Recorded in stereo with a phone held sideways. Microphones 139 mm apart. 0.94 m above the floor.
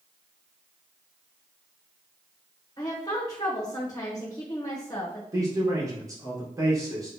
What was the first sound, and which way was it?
A woman speaking, 25° left (ahead or behind).